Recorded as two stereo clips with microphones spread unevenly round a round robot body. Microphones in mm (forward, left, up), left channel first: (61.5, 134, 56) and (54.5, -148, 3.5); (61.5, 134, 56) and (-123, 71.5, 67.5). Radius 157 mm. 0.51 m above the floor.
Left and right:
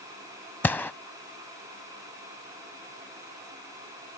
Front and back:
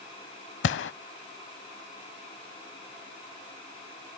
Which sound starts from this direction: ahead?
A gunshot, at 0.6 s.